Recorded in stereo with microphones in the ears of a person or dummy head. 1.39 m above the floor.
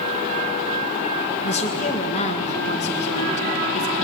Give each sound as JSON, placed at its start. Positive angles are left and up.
{"t": 1.4, "sound": "a woman speaking", "side_deg": 40, "distance_m": 1.7}